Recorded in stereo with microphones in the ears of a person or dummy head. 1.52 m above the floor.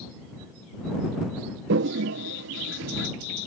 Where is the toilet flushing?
65° right (ahead or behind).